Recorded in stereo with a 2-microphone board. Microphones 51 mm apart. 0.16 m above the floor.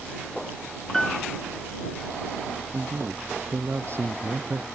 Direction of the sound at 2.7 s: 55° right (ahead or behind).